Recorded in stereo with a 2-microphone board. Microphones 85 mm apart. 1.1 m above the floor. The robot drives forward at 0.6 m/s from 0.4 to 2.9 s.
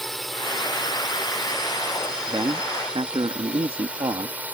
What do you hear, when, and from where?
0.0 s a drone: 5° left (ahead or behind); by 4.5 s 15° right (ahead or behind)
2.3 s a man speaking: 75° right (ahead or behind); by 4.5 s 80° right